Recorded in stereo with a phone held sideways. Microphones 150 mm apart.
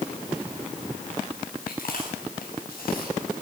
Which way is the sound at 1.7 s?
80° left.